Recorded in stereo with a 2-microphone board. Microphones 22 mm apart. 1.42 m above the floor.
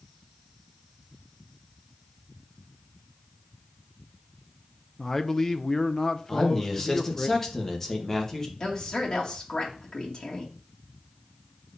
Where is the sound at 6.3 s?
20° left (ahead or behind), 1.6 m.